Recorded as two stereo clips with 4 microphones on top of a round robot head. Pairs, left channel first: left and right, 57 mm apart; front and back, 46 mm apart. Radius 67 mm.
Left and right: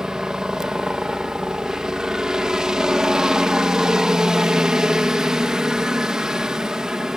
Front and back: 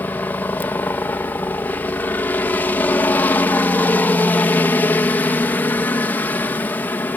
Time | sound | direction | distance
0.0 | a helicopter | 15° right | ?